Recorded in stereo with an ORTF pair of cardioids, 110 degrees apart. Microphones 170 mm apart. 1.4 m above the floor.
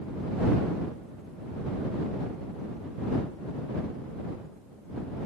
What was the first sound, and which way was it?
Only background noise.